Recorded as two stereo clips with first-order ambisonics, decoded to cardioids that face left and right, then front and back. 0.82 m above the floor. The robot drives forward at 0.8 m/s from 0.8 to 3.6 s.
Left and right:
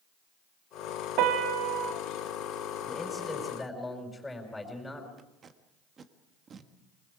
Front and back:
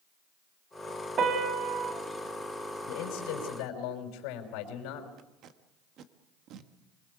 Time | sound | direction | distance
1.2 | a piano | 120° right | 1.9 m
2.9 | a man speaking | 10° left | 5.5 m
5.2 | tape being pulled | 150° right | 1.4 m